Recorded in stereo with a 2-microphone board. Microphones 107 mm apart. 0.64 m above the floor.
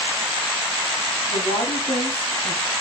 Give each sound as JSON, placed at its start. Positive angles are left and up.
{"t": 1.3, "sound": "a woman speaking", "side_deg": 75, "distance_m": 4.5}